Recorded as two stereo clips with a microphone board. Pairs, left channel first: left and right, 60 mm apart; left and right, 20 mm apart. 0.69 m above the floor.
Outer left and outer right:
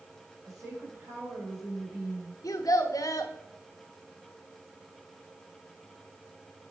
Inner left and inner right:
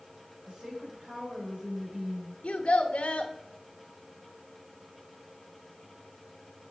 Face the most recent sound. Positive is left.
turn(degrees=75)  # may be behind; listen again after turning